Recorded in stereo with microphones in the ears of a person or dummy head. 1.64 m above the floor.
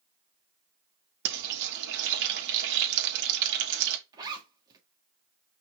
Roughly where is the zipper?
Right.